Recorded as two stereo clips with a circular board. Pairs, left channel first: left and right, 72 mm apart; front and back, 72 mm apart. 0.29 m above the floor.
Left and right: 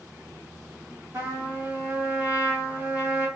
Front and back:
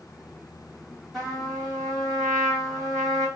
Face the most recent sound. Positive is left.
turn(degrees=-85)